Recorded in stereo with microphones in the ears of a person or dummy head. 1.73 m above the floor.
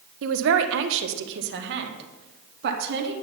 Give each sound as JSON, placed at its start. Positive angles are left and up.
{"t": 0.2, "sound": "a man speaking", "side_deg": -75, "distance_m": 1.3}